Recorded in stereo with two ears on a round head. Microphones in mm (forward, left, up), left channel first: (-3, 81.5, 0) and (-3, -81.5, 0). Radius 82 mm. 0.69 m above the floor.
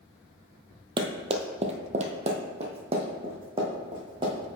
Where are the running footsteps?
25° right (ahead or behind), 0.8 m.